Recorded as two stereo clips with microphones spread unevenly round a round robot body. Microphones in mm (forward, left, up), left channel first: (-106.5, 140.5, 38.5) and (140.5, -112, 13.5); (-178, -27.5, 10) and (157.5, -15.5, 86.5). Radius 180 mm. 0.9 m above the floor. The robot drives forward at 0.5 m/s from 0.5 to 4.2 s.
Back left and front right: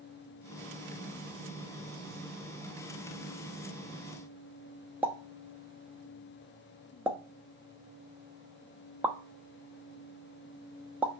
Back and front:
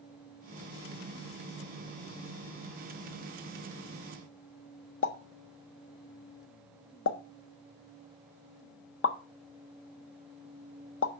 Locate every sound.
5.0 s a pop: 130° right, 0.9 m